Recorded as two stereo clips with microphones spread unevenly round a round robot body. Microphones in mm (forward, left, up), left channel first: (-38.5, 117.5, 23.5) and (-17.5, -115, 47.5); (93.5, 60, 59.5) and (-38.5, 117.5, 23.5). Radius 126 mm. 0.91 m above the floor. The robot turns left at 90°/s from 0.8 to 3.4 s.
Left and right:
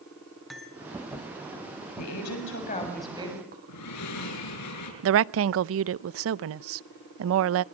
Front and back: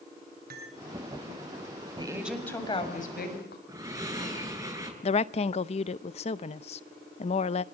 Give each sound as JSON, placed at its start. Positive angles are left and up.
{"t": 0.5, "sound": "cutlery clinking", "azimuth_deg": -175, "distance_m": 5.5}
{"t": 2.0, "sound": "a woman speaking", "azimuth_deg": 100, "distance_m": 7.0}
{"t": 3.7, "sound": "breathing", "azimuth_deg": 90, "distance_m": 7.5}
{"t": 5.0, "sound": "a woman speaking", "azimuth_deg": -75, "distance_m": 0.6}